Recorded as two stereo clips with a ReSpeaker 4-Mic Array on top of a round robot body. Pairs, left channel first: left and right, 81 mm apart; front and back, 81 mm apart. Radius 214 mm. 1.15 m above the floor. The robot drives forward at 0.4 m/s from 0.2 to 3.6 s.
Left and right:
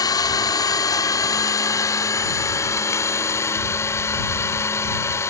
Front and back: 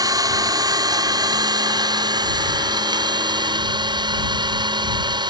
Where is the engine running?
135° left; by 5.3 s 150° left.